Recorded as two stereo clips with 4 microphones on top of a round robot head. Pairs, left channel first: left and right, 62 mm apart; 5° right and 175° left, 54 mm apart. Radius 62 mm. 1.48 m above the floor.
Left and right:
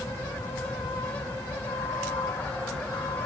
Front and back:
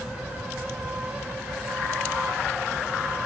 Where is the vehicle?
110° left.